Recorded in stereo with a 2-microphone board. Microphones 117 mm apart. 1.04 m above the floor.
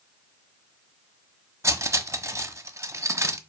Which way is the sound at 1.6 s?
25° right (ahead or behind).